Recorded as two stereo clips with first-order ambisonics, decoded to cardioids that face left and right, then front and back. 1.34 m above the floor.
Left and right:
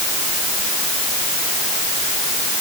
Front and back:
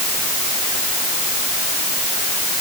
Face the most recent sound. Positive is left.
No sound to turn to.